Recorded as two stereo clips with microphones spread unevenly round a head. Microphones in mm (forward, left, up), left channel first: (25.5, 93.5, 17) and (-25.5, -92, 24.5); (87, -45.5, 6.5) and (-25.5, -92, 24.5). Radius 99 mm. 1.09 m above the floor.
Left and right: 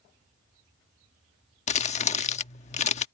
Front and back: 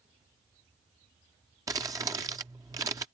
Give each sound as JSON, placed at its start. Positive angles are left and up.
{"t": 1.7, "sound": "crumpling", "azimuth_deg": 130}